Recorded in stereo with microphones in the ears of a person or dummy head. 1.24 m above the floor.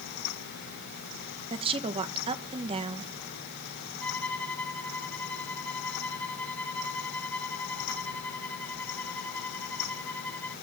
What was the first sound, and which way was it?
A woman speaking, 25° right (ahead or behind).